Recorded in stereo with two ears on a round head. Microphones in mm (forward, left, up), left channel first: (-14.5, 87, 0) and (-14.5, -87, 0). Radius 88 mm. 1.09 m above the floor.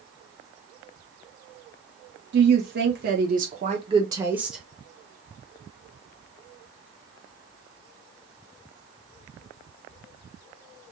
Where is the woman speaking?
60° right (ahead or behind), 1.2 m; by 4.6 s centre (ahead or behind), 0.8 m.